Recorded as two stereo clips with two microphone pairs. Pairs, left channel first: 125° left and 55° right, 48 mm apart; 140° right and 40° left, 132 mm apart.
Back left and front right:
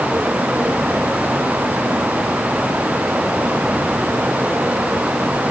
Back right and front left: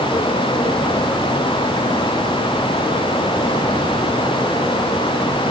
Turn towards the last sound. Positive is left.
No sound to turn to.